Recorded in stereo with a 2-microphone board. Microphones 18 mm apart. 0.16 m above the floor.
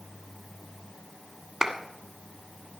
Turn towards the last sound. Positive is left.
turn(degrees=-30)  # may be behind; listen again after turning